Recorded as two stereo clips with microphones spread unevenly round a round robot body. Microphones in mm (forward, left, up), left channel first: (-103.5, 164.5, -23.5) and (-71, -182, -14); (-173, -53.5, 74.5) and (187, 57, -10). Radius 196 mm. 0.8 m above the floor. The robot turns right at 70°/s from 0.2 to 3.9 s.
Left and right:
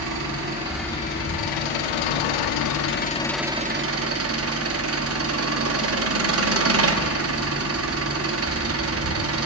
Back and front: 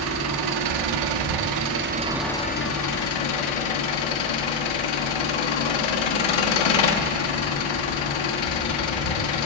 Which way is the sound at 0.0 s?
35° right.